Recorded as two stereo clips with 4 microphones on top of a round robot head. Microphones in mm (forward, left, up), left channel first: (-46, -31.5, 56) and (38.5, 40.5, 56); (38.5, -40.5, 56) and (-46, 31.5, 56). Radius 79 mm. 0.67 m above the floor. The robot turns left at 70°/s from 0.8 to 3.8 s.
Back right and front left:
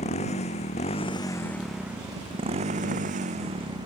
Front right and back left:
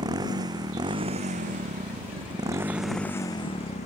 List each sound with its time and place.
0.0 s a motorcycle: 165° right; by 3.9 s 15° right